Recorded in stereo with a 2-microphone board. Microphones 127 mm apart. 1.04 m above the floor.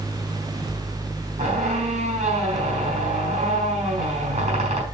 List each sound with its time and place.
1.4 s a squeak: 55° right (ahead or behind), 5.5 m